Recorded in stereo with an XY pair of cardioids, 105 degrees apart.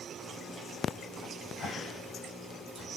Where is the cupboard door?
40° left, 3.5 m.